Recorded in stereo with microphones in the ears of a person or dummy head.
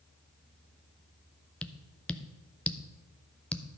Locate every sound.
1.6 s tapping: 5° left (ahead or behind), 0.6 m